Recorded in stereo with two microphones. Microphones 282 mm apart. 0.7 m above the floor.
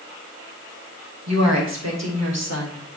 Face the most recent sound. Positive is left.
turn(degrees=-65)  # may be behind; listen again after turning